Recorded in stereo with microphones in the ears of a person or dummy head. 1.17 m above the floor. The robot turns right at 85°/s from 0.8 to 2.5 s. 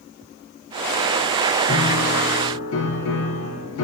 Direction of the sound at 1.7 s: 20° left.